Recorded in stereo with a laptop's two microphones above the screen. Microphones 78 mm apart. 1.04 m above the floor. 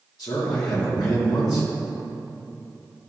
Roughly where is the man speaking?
Left.